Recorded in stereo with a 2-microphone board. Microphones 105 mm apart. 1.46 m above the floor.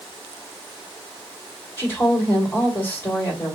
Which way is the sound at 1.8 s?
20° left (ahead or behind).